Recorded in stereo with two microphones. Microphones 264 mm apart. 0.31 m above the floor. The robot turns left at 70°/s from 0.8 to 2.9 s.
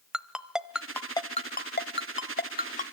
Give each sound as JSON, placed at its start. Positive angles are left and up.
{"t": 0.1, "sound": "a ringtone", "side_deg": 0, "distance_m": 0.9}